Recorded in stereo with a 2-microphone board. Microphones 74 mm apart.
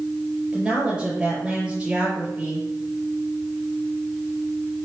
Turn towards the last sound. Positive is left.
turn(degrees=-15)  # may be behind; listen again after turning